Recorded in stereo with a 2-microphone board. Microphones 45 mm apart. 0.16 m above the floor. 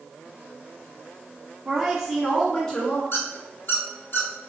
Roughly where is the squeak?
Left.